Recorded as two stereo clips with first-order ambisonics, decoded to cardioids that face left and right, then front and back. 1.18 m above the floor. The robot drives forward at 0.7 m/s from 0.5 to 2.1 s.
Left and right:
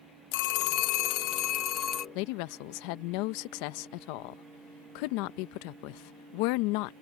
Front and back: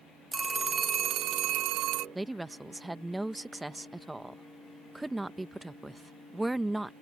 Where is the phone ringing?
100° left; by 2.0 s 145° left.